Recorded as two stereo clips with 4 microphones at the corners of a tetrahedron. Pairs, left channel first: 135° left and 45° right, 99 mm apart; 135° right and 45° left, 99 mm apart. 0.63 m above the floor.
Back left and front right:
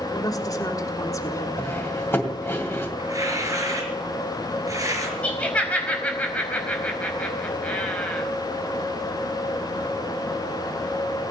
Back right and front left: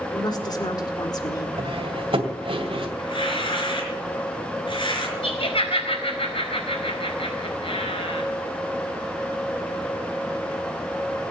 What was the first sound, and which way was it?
A woman speaking, 175° right.